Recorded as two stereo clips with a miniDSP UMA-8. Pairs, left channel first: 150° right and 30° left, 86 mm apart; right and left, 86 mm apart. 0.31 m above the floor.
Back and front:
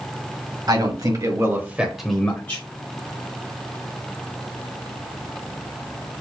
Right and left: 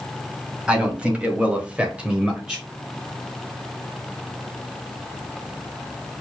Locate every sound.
0.7 s a man speaking: 15° left, 2.0 m; by 2.6 s 170° left, 1.4 m